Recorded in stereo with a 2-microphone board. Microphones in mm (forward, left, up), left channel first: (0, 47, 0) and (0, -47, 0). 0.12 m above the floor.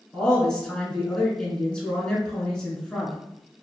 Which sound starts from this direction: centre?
A woman speaking, at 0.1 s.